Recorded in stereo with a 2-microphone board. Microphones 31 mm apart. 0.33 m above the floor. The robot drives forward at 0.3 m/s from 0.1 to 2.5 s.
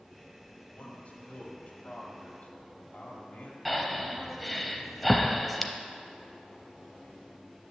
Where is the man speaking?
50° left (ahead or behind), 1.6 m.